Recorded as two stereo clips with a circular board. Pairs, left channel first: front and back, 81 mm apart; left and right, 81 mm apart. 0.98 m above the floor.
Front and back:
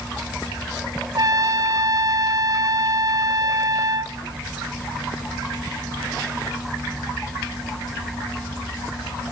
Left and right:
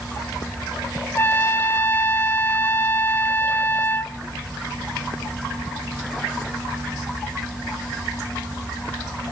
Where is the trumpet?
150° left, 0.7 m.